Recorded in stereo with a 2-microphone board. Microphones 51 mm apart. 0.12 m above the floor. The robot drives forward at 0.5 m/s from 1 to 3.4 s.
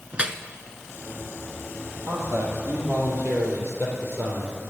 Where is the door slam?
No door slam in this recording.